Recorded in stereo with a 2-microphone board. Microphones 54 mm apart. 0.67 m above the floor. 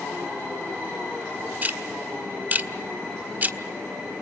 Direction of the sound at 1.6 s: 30° right (ahead or behind).